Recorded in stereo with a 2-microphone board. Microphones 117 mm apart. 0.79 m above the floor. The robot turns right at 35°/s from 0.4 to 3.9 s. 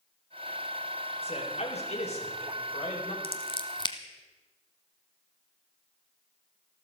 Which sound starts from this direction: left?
Scissors, at 3.2 s.